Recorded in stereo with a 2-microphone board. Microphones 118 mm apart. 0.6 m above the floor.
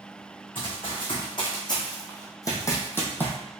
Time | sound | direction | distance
0.6 | running footsteps | 45° left (ahead or behind) | 2.5 m